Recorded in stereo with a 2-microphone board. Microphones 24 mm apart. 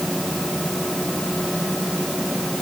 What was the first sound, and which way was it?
Only background noise.